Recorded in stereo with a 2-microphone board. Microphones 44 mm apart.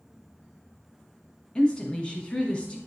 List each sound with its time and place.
1.6 s a woman speaking: 25° left (ahead or behind), 1.2 m